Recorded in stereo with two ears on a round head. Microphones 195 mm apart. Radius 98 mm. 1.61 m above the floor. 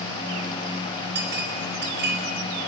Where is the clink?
55° right (ahead or behind), 4.5 m.